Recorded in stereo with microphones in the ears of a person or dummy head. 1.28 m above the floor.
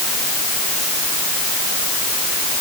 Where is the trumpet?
No trumpet in this recording.